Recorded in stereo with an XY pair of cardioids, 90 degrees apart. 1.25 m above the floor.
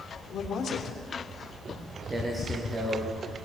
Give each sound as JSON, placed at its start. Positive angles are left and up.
{"t": 0.3, "sound": "a man speaking", "azimuth_deg": 65, "distance_m": 3.0}
{"t": 1.7, "sound": "footsteps", "azimuth_deg": -30, "distance_m": 7.0}